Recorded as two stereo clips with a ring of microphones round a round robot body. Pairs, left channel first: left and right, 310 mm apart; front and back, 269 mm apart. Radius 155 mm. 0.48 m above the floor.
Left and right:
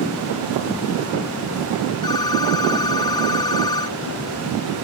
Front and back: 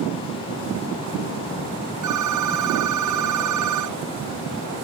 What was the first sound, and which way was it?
A phone ringing, 170° left.